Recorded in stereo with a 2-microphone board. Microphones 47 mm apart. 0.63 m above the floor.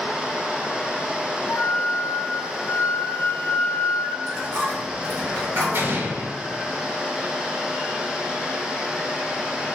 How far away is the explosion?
About 0.8 m.